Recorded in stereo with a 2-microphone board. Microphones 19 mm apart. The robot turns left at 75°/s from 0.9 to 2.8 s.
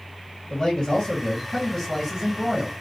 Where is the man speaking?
90° left, 1.7 m; by 2.7 s 45° right, 1.7 m.